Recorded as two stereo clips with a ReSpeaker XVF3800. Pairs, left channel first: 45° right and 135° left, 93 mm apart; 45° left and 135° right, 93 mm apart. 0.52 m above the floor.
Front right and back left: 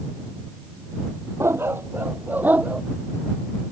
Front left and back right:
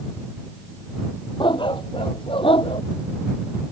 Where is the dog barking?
75° left; by 2.8 s 60° left.